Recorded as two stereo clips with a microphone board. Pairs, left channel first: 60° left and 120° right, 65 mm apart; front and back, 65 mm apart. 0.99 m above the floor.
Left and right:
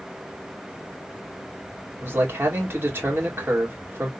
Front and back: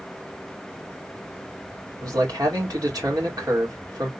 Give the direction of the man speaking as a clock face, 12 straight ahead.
6 o'clock.